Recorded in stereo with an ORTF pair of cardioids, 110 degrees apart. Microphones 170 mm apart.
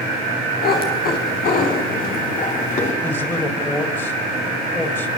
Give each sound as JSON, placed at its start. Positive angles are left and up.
{"t": 0.6, "sound": "a cat meowing", "azimuth_deg": 65, "distance_m": 6.0}
{"t": 3.0, "sound": "a man speaking", "azimuth_deg": 15, "distance_m": 5.0}